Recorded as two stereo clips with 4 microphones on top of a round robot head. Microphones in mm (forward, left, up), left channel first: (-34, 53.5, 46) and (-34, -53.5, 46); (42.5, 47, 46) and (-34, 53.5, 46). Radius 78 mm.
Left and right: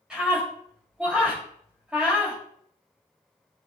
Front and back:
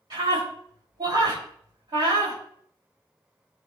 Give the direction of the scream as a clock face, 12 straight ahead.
6 o'clock.